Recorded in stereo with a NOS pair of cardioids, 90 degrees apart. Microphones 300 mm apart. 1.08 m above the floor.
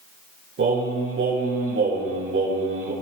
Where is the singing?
45° right, 9 m.